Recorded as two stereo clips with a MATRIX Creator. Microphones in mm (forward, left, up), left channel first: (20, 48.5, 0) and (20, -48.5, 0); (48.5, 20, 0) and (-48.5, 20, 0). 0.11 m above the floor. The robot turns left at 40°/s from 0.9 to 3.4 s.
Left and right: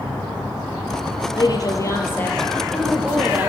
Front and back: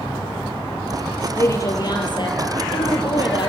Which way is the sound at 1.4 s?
60° left.